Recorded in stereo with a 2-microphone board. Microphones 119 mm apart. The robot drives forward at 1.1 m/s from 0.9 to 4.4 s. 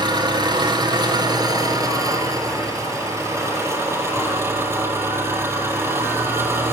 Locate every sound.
0.0 s an engine running: 40° right (ahead or behind), 5 m; by 6.7 s 20° right (ahead or behind), 8.5 m